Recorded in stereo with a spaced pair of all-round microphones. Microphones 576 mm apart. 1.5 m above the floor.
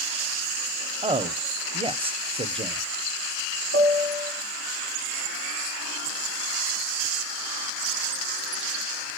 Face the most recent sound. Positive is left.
turn(degrees=35)  # may be behind; listen again after turning